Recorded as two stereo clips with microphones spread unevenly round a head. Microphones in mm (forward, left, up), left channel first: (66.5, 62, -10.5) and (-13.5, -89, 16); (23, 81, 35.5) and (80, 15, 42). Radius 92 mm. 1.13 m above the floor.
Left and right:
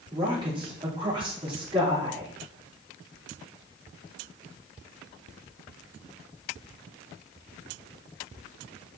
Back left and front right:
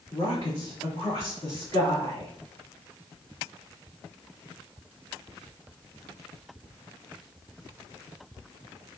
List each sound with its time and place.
0.1 s a woman speaking: 175° left, 3 m